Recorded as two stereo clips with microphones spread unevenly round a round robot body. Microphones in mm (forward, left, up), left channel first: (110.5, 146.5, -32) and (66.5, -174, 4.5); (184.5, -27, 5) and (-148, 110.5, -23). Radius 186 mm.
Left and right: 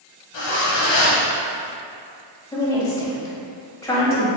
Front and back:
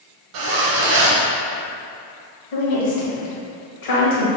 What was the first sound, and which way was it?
A zipper, 125° left.